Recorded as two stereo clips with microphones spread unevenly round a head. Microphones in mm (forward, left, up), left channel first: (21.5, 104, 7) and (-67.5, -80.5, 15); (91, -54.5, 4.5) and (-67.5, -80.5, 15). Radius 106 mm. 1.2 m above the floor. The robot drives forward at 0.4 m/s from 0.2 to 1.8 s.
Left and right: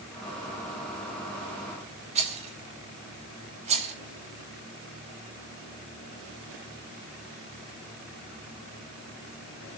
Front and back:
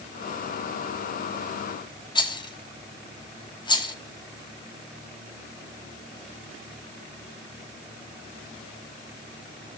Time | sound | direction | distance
2.1 | a rattle | 55° right | 2.5 m